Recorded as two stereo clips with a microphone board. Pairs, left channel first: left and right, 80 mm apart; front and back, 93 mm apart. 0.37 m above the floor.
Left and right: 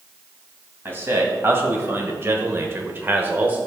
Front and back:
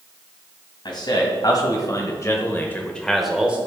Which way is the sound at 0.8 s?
30° right.